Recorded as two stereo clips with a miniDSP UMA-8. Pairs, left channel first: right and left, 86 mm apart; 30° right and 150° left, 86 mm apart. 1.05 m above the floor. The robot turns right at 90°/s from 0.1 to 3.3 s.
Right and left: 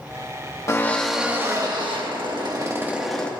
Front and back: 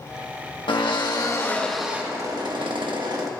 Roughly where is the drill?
Ahead right.